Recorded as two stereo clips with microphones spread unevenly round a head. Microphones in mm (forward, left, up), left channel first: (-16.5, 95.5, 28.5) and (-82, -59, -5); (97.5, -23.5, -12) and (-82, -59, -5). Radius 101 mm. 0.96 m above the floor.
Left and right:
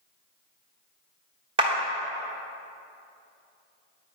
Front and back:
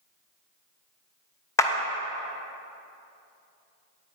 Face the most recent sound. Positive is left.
turn(degrees=-60)